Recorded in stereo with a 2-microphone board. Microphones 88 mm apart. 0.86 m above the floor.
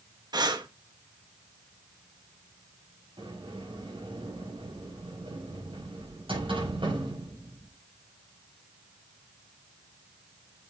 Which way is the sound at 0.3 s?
50° right (ahead or behind).